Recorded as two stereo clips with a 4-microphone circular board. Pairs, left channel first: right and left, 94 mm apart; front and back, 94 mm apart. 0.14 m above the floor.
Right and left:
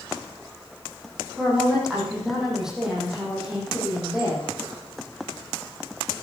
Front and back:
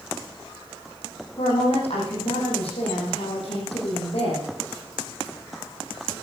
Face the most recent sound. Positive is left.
turn(degrees=5)